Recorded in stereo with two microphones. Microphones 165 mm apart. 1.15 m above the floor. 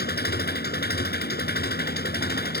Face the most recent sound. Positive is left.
turn(degrees=80)